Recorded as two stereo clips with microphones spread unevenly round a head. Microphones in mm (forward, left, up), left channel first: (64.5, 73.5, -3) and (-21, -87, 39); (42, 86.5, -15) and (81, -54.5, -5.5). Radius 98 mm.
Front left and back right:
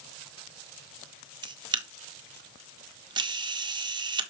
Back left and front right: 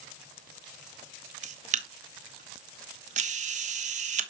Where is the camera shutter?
45° right, 1.3 m.